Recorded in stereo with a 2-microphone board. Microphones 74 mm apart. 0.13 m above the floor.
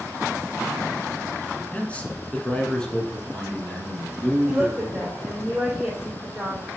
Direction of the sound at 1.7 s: 20° left (ahead or behind).